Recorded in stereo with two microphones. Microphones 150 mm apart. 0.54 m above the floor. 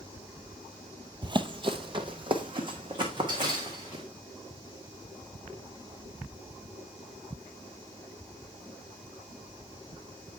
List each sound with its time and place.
1.2 s running footsteps: 30° right (ahead or behind), 0.6 m